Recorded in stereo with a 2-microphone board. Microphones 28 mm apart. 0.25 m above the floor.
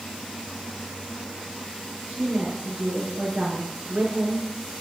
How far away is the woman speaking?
About 4.5 m.